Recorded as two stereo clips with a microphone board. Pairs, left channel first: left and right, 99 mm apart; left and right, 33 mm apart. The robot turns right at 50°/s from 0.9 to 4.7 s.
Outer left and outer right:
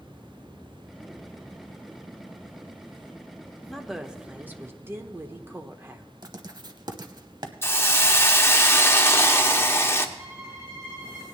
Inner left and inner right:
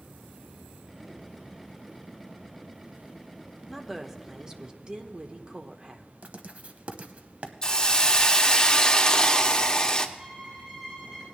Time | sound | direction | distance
3.7 | a woman speaking | 175° left | 0.9 m
6.2 | writing | 50° right (ahead or behind) | 0.9 m
7.6 | a hiss | 25° left (ahead or behind) | 0.8 m
10.2 | a violin | 40° right (ahead or behind) | 7.5 m